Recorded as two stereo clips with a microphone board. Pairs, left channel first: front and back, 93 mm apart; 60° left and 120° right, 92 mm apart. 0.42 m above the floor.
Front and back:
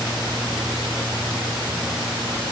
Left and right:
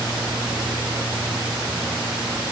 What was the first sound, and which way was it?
Only background noise.